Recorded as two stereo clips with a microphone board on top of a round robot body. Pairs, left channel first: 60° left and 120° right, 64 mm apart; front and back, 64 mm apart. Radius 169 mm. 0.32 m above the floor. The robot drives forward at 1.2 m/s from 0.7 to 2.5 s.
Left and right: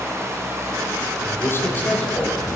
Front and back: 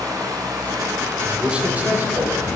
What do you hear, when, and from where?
0.0 s running water: 165° right, 2.5 m; by 2.6 s 175° right, 5 m
1.2 s a man speaking: 100° left, 2 m; by 2.6 s 135° left, 2.5 m